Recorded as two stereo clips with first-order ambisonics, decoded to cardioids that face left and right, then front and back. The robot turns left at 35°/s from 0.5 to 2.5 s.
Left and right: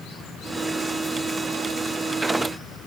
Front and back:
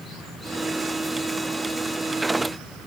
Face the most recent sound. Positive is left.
No sound to turn to.